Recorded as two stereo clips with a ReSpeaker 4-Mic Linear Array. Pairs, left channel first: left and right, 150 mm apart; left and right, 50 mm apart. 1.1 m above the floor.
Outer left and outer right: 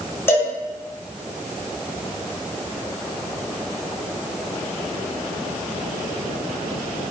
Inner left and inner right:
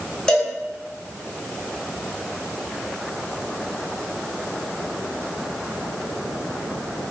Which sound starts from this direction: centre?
A cowbell, at 0.3 s.